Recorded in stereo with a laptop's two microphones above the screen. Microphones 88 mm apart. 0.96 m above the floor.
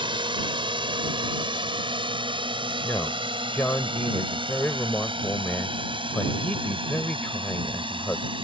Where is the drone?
70° right (ahead or behind); by 8.4 s 75° right (ahead or behind).